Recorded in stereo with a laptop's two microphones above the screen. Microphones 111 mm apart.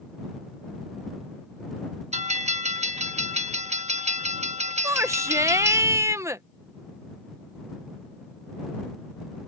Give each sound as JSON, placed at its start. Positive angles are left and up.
{"t": 2.1, "sound": "a bell", "side_deg": -70}
{"t": 4.8, "sound": "a shout", "side_deg": -25}